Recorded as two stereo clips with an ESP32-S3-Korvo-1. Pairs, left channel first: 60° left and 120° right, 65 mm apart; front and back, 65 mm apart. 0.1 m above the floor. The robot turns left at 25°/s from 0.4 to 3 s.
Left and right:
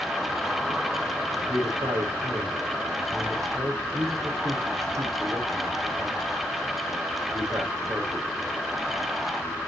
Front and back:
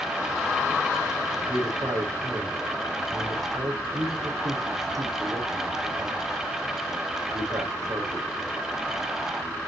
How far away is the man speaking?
About 4.5 m.